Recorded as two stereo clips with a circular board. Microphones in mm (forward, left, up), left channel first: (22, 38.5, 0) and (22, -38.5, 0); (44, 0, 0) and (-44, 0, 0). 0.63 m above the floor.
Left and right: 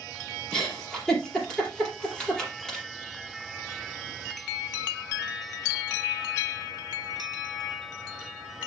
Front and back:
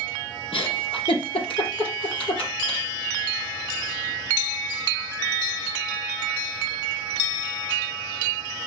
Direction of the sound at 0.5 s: 10° left.